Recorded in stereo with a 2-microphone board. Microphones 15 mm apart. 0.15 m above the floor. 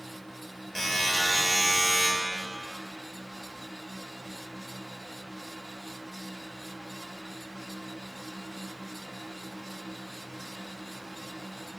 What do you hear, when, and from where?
0.8 s a buzzer: 40° left (ahead or behind), 4 m